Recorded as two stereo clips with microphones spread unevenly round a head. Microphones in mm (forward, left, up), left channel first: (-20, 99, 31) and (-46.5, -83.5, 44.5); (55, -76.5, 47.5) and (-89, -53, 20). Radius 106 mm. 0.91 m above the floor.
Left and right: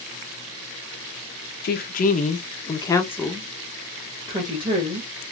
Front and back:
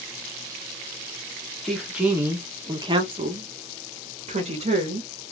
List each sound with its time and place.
1.6 s a woman speaking: 85° left, 0.9 m; by 5.1 s 160° right, 1.4 m